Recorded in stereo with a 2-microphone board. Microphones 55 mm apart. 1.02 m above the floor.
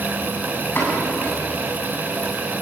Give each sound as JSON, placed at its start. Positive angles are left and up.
{"t": 0.8, "sound": "a pop", "side_deg": 40, "distance_m": 8.0}